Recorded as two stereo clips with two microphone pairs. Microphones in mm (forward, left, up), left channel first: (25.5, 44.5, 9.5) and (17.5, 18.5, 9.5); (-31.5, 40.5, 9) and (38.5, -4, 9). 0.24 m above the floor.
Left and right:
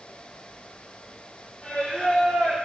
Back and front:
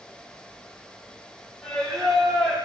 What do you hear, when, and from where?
1.6 s singing: 65° left, 6 m